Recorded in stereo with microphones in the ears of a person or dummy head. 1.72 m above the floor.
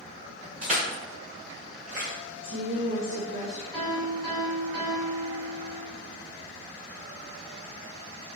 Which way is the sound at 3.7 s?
5° right (ahead or behind).